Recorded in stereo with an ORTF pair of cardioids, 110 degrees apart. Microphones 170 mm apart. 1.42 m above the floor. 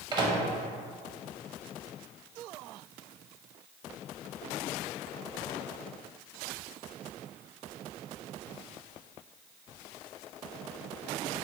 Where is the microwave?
25° right, 0.6 m.